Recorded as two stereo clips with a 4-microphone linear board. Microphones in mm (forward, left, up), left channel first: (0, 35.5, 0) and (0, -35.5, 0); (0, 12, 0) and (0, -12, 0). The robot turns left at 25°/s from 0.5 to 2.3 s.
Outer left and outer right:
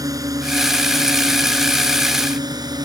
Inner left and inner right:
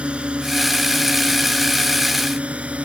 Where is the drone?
60° right (ahead or behind); by 2.9 s 75° right (ahead or behind).